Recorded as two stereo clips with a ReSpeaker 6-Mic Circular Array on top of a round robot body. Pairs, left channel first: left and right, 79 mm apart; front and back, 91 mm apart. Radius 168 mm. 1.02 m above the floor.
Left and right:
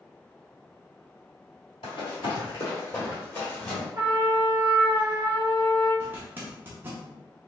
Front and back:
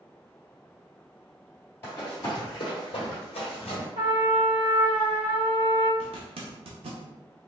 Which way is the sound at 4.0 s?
145° right.